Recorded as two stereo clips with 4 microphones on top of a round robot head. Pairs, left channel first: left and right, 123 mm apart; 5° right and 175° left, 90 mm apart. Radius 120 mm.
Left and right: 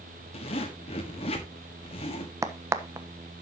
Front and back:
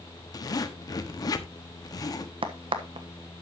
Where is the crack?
155° right, 1.2 m.